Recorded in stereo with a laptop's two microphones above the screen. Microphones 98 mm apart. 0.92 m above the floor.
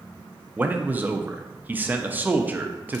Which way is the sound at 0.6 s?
20° right (ahead or behind).